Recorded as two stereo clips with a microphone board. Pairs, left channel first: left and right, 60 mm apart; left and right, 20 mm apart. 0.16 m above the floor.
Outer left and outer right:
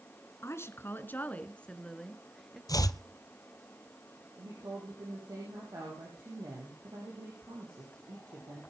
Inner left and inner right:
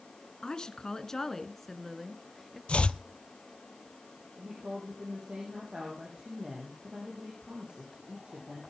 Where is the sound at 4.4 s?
80° right, 6 m.